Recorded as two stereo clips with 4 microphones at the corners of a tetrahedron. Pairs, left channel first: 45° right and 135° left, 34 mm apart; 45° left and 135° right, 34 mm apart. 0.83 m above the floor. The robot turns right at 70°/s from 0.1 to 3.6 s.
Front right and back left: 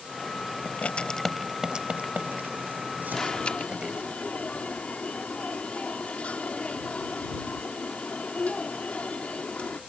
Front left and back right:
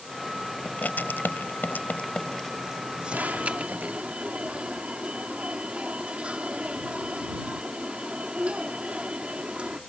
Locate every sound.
0.7 s writing: 5° right; by 4.1 s 160° right
3.1 s an alarm: 120° right; by 9.8 s 85° right